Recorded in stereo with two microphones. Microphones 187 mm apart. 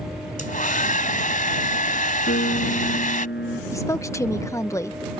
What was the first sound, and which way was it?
A hair dryer, 45° left (ahead or behind).